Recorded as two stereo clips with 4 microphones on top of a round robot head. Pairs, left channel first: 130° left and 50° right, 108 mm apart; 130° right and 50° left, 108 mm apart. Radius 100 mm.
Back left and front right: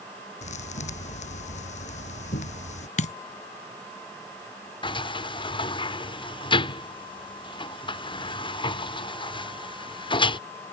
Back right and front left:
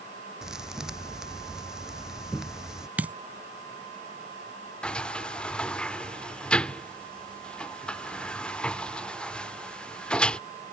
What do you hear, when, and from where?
0.4 s a thud: 135° left
3.0 s a dropped coin: 130° left
4.8 s a sliding door: 155° left